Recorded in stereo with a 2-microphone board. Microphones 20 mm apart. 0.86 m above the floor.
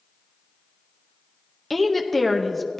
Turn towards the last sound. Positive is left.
turn(degrees=10)  # may be behind; listen again after turning